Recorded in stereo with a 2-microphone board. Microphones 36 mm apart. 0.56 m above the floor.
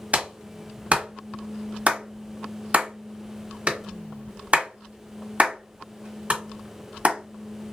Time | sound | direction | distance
0.1 | a clap | 40° right (ahead or behind) | 1.3 m